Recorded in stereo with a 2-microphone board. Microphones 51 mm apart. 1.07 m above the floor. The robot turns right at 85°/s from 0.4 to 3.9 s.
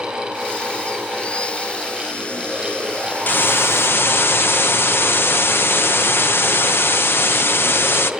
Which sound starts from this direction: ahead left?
A hiss, at 3.3 s.